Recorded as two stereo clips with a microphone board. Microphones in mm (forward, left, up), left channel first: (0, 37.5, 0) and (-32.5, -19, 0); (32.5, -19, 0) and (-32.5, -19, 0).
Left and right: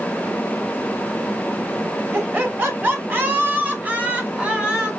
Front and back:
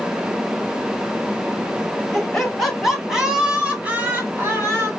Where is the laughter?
80° right, 2 m; by 4.9 s 170° left, 1.9 m.